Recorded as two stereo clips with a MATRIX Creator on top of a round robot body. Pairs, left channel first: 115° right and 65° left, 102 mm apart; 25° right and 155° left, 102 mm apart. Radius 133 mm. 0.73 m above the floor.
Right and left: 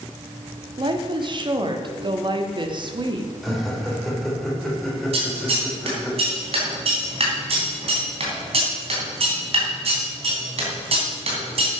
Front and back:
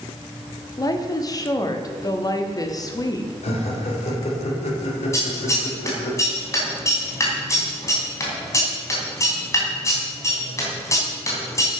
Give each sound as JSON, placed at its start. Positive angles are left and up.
{"t": 0.8, "sound": "a woman speaking", "azimuth_deg": 30, "distance_m": 1.5}
{"t": 3.4, "sound": "laughter", "azimuth_deg": -25, "distance_m": 3.5}
{"t": 5.1, "sound": "scissors", "azimuth_deg": 40, "distance_m": 3.0}